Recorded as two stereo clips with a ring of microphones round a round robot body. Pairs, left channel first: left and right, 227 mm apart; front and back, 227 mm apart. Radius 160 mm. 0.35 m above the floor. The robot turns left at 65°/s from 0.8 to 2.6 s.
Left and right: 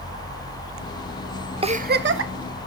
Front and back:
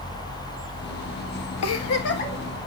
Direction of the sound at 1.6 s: 25° right.